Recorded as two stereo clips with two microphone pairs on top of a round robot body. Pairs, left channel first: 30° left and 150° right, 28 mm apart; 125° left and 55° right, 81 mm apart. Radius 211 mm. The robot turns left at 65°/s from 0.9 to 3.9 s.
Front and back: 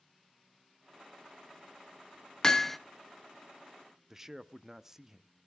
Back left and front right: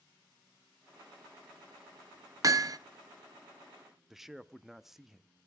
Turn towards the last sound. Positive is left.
turn(degrees=-135)